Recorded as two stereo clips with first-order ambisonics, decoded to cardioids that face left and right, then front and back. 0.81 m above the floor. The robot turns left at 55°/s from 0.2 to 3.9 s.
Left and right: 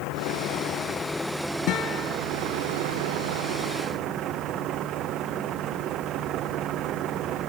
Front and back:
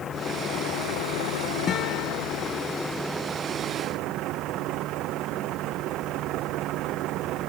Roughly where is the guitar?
Ahead left.